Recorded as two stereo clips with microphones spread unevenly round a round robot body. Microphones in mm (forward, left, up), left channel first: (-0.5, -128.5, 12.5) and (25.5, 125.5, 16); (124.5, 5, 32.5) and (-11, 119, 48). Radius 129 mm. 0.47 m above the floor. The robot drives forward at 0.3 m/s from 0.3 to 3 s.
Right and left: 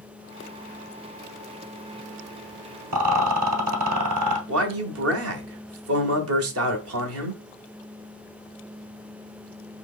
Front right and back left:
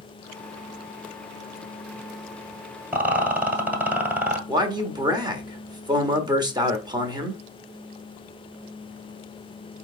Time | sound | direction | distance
2.9 | a rattle | 60° left | 1.5 m
4.5 | a man speaking | 75° left | 1.3 m